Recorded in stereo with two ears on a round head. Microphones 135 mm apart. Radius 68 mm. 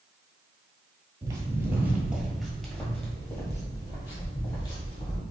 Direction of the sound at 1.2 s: 25° right (ahead or behind).